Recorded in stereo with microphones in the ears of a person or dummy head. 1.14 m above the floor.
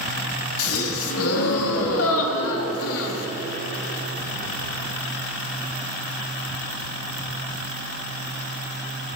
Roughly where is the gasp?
Left.